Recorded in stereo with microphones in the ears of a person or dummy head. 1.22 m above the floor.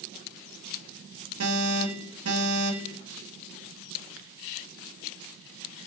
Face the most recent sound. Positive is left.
turn(degrees=-85)